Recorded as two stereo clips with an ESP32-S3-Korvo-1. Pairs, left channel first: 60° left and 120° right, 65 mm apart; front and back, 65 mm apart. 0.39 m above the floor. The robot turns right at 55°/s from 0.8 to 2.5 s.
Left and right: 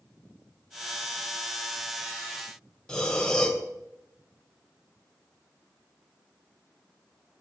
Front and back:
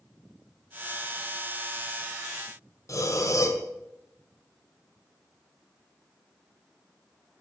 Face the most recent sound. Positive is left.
turn(degrees=-20)